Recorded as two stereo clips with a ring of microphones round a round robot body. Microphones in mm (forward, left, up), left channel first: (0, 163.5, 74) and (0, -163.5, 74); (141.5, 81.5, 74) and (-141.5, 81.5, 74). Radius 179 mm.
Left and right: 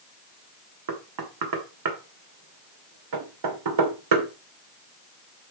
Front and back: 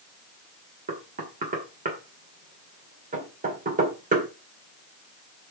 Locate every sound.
0.9 s knocking: 115° right, 2 m